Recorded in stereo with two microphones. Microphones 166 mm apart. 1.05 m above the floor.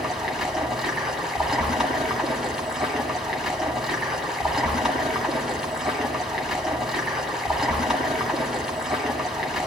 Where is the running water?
Centre (ahead or behind), 1.8 m.